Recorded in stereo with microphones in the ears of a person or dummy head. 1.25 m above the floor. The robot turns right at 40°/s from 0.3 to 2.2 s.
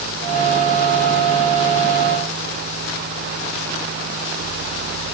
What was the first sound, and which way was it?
Only background noise.